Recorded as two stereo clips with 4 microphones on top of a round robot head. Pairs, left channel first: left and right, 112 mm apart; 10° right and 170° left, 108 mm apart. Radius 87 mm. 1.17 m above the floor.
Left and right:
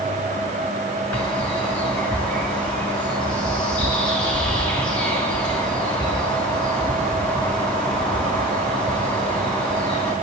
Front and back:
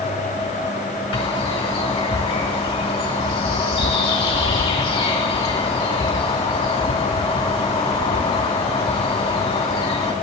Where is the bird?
10° left, 2.5 m.